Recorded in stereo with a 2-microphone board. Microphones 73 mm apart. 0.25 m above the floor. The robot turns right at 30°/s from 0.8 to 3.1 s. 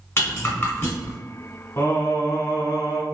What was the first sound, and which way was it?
A rattle, 30° left (ahead or behind).